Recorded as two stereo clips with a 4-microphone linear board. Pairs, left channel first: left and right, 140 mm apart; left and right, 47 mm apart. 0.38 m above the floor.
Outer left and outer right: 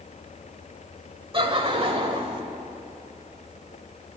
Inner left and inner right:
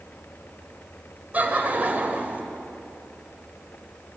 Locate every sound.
1.3 s laughter: 40° right (ahead or behind), 1.2 m